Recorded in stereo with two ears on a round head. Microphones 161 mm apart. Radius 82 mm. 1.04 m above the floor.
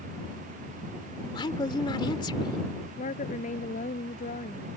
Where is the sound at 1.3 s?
25° left (ahead or behind).